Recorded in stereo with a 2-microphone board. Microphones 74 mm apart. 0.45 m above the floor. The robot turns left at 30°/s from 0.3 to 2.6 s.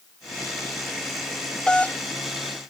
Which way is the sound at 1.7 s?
15° left (ahead or behind).